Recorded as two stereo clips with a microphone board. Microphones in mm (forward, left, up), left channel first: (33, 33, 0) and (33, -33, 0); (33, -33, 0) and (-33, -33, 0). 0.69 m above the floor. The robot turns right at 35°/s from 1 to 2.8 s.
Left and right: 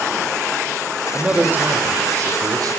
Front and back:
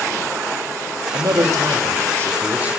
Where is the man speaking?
165° right, 2.0 m; by 2.8 s 105° right, 2.0 m.